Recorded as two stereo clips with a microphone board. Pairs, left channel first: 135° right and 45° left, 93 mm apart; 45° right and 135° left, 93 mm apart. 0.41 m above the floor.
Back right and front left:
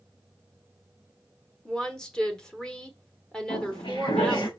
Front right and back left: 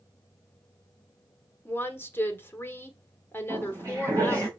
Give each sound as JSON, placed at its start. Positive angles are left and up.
{"t": 1.6, "sound": "a woman speaking", "azimuth_deg": -65, "distance_m": 1.4}
{"t": 3.5, "sound": "footsteps", "azimuth_deg": -165, "distance_m": 5.0}